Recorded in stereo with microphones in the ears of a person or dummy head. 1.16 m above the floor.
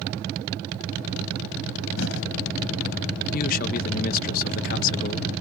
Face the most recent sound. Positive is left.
turn(degrees=50)  # may be behind; listen again after turning